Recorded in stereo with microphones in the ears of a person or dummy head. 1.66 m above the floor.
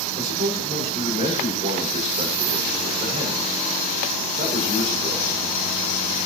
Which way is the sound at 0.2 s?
40° right (ahead or behind).